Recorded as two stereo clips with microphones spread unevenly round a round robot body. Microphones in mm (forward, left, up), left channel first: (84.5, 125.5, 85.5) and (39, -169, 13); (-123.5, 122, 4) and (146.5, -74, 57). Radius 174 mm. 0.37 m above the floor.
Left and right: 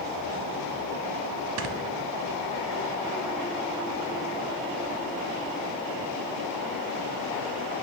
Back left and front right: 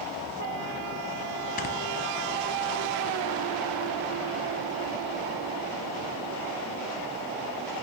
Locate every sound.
1.6 s snoring: 145° right, 0.5 m